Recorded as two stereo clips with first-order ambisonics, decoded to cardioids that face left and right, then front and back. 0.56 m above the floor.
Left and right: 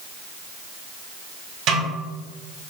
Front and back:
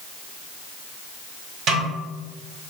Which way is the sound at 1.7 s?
125° right.